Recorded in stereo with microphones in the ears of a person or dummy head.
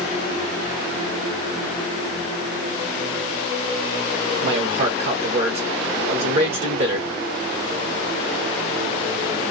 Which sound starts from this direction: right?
A man speaking, at 4.4 s.